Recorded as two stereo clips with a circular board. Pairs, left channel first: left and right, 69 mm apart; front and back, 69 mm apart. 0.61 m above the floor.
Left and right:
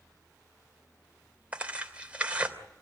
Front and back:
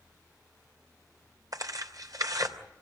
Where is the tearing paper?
160° right, 3 m.